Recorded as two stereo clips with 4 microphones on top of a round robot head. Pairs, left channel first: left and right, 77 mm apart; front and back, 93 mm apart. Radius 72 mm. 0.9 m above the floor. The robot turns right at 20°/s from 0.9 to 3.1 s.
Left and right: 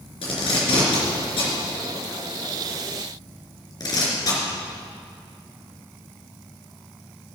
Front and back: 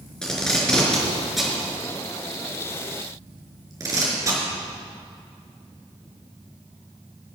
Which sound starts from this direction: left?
Tape being pulled, at 0.2 s.